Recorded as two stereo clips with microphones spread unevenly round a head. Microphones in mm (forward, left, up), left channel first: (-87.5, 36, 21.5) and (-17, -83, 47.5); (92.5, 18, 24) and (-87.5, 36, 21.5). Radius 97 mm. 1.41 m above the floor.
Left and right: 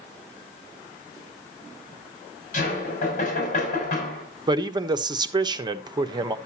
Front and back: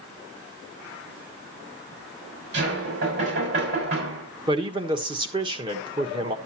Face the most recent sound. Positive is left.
turn(degrees=-115)